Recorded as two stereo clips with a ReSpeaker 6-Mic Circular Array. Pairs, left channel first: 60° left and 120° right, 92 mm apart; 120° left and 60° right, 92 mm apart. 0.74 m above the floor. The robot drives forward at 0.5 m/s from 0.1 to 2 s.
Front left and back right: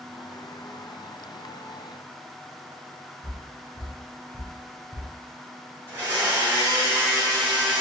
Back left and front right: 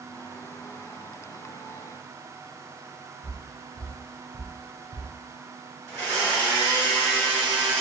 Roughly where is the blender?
Behind.